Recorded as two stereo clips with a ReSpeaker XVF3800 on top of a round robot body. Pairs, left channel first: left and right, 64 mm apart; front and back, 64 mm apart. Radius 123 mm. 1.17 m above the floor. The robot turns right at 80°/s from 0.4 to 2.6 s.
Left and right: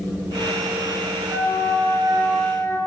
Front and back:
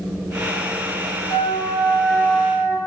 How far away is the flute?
About 3.5 m.